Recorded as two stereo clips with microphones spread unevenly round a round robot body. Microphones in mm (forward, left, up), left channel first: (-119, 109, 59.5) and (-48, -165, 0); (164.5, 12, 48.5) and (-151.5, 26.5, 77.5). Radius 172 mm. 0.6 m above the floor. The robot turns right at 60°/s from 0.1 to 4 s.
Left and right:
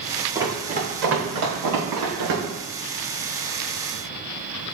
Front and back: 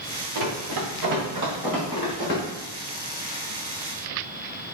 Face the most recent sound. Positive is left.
turn(degrees=40)